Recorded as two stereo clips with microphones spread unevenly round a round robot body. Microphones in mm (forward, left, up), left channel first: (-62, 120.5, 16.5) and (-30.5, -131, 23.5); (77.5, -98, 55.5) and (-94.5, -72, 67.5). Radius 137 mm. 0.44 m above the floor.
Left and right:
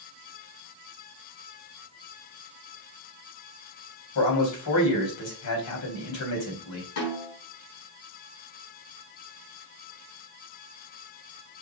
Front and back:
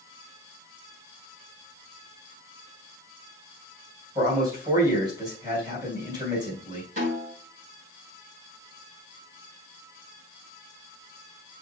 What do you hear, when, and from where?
4.2 s a man speaking: 100° left, 3.5 m
7.0 s a snare drum: 115° left, 4 m